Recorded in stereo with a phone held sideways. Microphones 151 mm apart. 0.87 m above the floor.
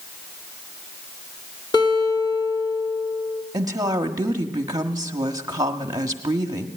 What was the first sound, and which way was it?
A guitar, 25° left (ahead or behind).